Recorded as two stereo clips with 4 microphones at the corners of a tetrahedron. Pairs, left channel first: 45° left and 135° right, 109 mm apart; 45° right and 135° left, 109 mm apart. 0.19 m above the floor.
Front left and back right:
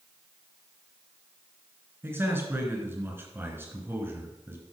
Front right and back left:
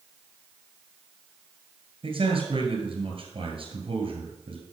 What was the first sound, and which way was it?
A man speaking, 155° left.